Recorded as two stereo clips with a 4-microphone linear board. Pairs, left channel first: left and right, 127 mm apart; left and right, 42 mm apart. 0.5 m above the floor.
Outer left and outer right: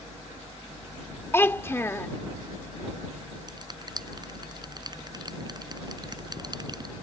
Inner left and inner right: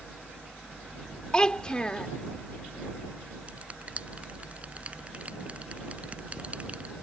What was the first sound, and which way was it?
A child speaking, 20° left (ahead or behind).